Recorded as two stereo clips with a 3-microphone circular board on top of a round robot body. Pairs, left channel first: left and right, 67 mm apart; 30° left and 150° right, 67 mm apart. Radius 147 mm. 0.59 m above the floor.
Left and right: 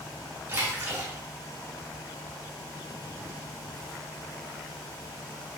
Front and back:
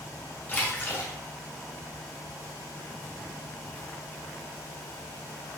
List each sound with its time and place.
0.5 s a splash: 30° right, 2 m